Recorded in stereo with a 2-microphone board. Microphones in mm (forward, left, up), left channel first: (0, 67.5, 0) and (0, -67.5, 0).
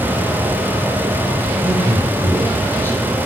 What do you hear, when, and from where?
1.6 s a man speaking: 20° left (ahead or behind), 7.5 m